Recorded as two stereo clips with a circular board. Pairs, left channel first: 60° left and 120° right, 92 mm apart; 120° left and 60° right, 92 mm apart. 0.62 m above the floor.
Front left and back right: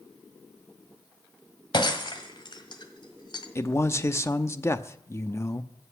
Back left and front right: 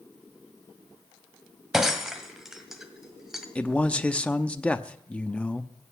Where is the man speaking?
60° left, 0.7 m.